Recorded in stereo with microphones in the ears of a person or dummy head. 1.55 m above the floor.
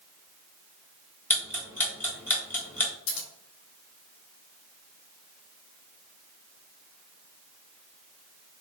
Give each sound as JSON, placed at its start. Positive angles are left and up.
{"t": 1.3, "sound": "ticking", "side_deg": 10, "distance_m": 1.1}
{"t": 3.1, "sound": "scissors", "side_deg": 75, "distance_m": 0.8}